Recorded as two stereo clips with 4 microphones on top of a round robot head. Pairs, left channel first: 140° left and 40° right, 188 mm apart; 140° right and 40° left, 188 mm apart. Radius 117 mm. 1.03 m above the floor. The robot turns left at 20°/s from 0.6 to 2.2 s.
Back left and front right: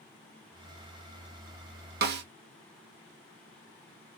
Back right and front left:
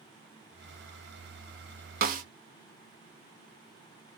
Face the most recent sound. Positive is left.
turn(degrees=-5)